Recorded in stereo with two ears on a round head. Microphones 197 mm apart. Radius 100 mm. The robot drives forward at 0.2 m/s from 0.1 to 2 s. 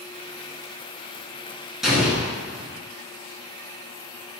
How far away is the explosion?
About 0.8 m.